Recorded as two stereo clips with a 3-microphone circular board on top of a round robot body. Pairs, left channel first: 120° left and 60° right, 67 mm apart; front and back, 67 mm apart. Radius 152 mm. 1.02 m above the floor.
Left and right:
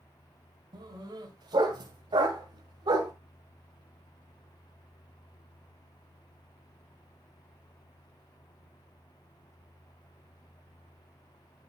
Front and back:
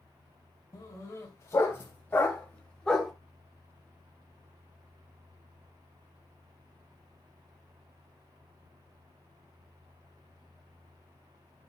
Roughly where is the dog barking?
Ahead right.